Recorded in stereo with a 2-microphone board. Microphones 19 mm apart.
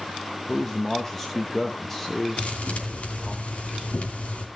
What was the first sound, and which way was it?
A man speaking, 15° left (ahead or behind).